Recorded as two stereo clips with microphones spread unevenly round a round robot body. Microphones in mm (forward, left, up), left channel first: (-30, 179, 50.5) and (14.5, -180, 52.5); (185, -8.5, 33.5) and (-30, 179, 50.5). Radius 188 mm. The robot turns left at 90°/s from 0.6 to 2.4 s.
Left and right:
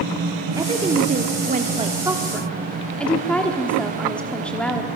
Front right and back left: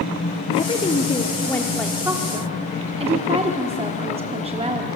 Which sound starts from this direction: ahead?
A woman speaking, at 0.6 s.